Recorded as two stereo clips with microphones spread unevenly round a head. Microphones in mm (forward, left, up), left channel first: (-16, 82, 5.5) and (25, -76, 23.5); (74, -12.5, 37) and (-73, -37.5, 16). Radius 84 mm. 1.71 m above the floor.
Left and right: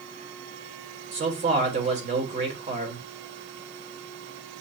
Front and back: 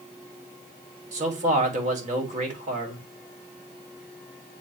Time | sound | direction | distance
1.1 | a man speaking | 125° right | 1.4 m